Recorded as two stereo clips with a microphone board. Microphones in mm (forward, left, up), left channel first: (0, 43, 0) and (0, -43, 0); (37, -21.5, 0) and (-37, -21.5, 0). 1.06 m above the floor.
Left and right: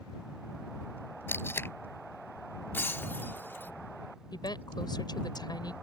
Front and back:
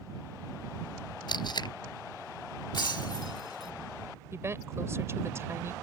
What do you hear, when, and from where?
1.3 s tape being pulled: 25° left
2.7 s breaking glass: 25° left
4.3 s a woman speaking: 125° left